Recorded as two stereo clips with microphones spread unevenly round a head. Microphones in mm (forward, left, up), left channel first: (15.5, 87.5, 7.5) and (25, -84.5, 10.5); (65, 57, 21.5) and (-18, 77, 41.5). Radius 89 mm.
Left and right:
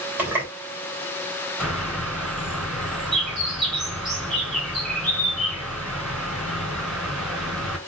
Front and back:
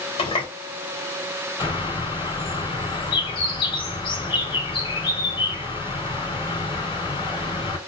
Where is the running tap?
5° right, 2.5 m.